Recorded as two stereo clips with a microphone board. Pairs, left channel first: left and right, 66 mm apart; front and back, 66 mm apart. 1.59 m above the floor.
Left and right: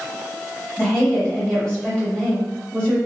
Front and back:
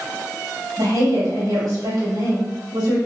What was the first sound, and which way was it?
A woman speaking, 165° left.